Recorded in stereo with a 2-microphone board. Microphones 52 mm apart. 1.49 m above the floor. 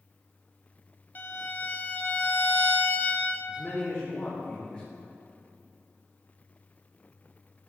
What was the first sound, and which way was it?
A violin, 35° left (ahead or behind).